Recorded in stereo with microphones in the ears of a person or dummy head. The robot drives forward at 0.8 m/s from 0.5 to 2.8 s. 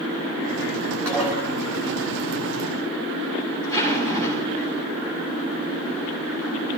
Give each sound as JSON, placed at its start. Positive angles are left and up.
{"t": 1.1, "sound": "dishes clattering", "side_deg": -15, "distance_m": 6.0}
{"t": 3.6, "sound": "a zipper", "side_deg": -35, "distance_m": 6.5}